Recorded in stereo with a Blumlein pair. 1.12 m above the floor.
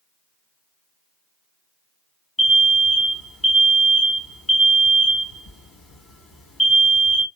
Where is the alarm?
10° left, 1.3 m.